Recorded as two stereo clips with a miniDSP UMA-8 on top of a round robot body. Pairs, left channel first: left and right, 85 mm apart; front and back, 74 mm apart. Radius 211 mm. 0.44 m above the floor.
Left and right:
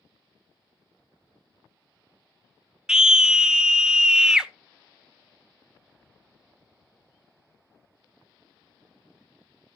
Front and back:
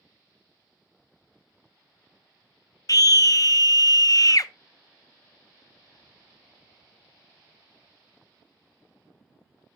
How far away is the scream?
About 1.1 m.